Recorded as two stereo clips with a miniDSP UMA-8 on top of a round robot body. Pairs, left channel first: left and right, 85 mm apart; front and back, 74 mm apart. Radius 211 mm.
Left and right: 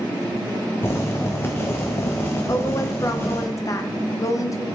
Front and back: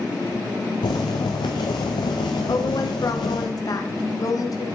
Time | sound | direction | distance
0.8 | boiling | 25° left | 0.6 m
2.5 | a woman speaking | 40° left | 1.3 m